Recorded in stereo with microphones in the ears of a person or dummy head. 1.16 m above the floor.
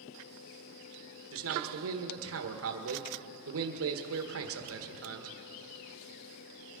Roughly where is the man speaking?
Right.